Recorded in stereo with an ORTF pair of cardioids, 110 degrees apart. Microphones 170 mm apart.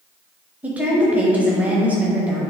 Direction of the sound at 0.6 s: 10° right.